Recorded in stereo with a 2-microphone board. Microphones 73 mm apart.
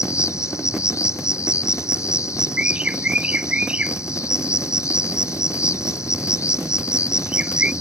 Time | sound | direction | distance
0.0 | an insect | 45° left (ahead or behind) | ?
2.6 | a bird | 20° right (ahead or behind) | ?